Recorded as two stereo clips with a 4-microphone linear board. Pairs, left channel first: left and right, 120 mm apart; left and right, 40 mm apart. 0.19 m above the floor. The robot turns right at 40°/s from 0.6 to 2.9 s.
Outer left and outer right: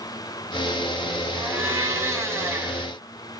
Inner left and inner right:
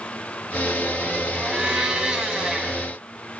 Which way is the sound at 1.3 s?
15° right (ahead or behind).